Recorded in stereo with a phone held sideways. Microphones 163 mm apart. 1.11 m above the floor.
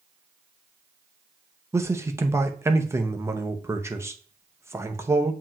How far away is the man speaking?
About 0.6 m.